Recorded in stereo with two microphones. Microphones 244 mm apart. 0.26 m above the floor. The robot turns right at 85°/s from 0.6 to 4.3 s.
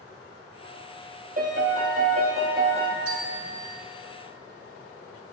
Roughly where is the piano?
Behind right.